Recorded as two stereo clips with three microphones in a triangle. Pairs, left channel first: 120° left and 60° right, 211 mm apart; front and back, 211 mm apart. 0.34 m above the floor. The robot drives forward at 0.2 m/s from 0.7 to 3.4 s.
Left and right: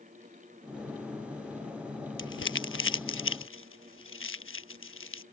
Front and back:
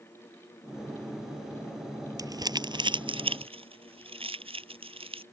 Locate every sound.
2.2 s crumpling: 105° left; by 5.2 s 115° left